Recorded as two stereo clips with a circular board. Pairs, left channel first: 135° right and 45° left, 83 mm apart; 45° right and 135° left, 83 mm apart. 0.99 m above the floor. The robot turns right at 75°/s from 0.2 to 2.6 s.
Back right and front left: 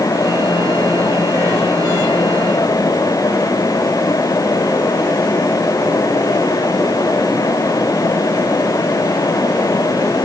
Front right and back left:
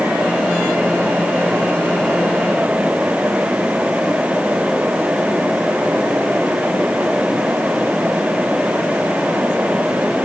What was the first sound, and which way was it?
Only background noise.